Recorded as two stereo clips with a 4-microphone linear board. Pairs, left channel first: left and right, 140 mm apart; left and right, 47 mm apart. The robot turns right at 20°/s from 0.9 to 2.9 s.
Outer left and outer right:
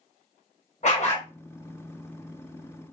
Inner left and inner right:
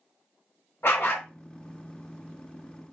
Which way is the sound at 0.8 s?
55° left (ahead or behind).